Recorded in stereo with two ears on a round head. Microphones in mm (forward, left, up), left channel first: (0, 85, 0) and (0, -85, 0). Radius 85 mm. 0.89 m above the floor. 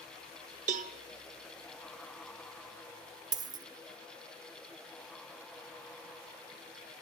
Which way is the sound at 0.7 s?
40° right (ahead or behind).